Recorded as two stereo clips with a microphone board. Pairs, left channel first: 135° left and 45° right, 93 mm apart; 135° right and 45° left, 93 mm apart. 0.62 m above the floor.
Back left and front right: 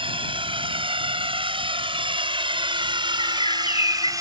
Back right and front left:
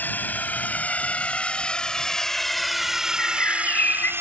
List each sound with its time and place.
0.0 s a drone: 65° right; by 4.2 s 10° right
3.2 s a bird: 155° left